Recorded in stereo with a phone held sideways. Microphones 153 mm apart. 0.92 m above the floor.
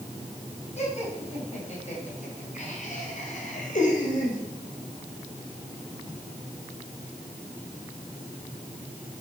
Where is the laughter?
45° left (ahead or behind), 6 m; by 4.4 s 60° left (ahead or behind), 4 m.